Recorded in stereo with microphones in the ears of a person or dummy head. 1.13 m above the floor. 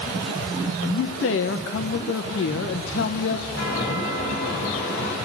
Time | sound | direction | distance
0.8 | a man speaking | 55° left (ahead or behind) | 0.9 m
3.5 | a chime | 65° left (ahead or behind) | 5 m